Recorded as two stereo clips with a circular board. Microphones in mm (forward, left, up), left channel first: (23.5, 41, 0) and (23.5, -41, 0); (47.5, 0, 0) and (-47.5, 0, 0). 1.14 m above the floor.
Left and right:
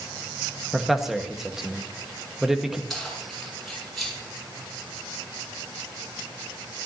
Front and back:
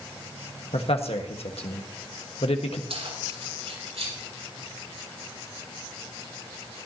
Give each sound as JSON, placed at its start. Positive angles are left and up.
{"t": 0.7, "sound": "a man speaking", "azimuth_deg": -5, "distance_m": 1.6}
{"t": 2.9, "sound": "keys jangling", "azimuth_deg": 180, "distance_m": 7.5}